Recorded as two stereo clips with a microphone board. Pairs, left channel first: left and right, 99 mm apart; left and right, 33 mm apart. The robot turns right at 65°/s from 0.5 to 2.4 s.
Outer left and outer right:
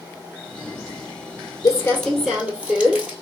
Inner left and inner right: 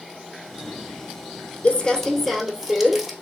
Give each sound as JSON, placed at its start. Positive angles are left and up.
{"t": 1.6, "sound": "crumpling", "azimuth_deg": 140, "distance_m": 1.3}